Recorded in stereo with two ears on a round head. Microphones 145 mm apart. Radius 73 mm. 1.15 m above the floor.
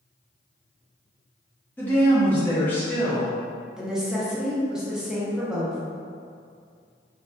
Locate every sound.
1.8 s a woman speaking: 10° left (ahead or behind), 0.7 m
3.8 s a woman speaking: 5° right (ahead or behind), 0.6 m